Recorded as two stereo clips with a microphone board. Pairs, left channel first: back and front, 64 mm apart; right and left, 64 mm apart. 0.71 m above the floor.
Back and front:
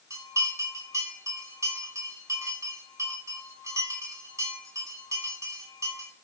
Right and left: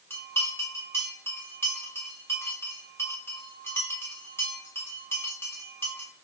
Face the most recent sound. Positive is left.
turn(degrees=-40)